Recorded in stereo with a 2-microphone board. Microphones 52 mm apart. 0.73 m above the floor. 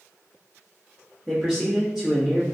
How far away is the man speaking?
About 1.1 m.